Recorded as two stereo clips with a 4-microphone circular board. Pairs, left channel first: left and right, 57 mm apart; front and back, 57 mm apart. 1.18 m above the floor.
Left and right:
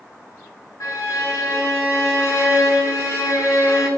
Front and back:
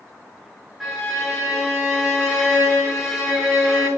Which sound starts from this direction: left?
A violin, at 0.8 s.